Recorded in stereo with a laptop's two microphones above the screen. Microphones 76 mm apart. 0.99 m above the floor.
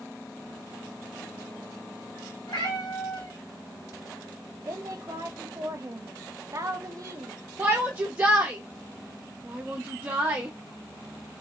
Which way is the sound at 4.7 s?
45° right (ahead or behind).